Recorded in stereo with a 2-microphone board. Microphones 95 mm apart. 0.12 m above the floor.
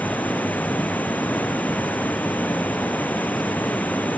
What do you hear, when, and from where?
0.0 s running water: 15° left (ahead or behind)